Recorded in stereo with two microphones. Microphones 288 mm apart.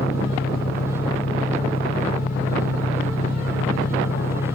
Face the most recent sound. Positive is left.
turn(degrees=30)  # may be behind; listen again after turning